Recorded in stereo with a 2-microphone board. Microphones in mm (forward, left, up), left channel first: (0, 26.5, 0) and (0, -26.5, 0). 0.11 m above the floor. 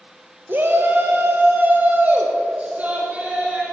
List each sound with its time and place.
0.5 s a shout: 45° right (ahead or behind), 1.6 m; by 3.6 s 25° right (ahead or behind), 4 m